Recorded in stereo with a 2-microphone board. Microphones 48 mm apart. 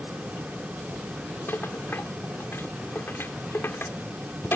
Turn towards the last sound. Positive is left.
turn(degrees=55)  # may be behind; listen again after turning